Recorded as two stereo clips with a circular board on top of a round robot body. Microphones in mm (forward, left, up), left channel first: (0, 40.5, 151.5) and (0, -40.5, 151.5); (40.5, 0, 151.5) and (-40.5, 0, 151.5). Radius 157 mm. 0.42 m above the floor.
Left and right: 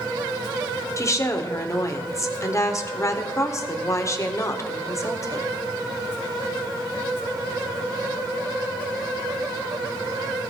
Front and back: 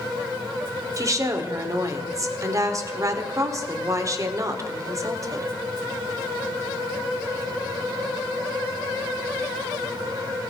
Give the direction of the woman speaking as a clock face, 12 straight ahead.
7 o'clock.